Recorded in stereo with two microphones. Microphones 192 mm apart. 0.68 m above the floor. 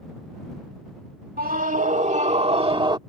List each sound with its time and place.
1.4 s a scream: 50° right (ahead or behind); by 3.0 s 25° right (ahead or behind)